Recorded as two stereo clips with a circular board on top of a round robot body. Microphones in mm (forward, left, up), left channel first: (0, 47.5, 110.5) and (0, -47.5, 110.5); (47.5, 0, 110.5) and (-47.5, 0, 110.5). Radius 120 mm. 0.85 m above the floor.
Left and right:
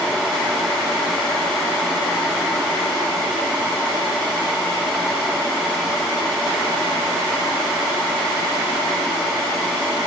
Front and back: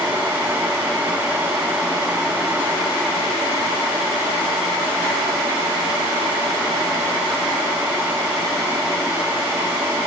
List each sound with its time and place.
Only background noise.